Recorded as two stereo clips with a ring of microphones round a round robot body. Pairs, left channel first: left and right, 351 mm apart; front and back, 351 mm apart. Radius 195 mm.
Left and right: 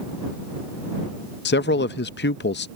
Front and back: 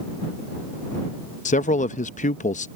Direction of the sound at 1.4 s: 55° left.